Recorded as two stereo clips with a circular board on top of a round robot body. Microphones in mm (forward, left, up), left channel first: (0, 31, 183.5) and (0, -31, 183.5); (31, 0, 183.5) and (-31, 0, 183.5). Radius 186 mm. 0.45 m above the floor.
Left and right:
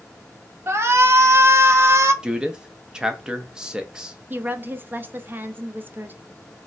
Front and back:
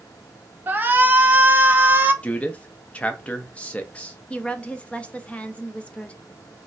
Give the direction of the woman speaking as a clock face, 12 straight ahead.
2 o'clock.